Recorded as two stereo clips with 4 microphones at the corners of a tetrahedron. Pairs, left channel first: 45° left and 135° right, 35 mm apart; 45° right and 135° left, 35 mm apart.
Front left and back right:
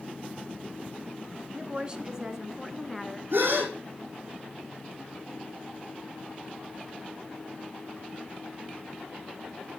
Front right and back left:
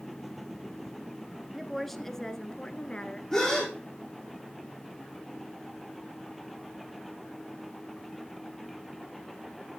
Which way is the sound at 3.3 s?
120° right.